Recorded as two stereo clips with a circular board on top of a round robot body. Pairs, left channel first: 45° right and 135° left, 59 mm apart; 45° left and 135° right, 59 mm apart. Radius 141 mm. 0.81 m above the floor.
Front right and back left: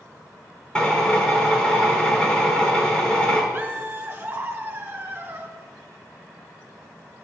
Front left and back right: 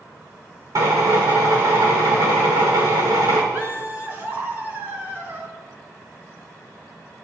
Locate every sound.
0.8 s a drill: 120° right, 3 m
3.5 s laughter: straight behind, 2.5 m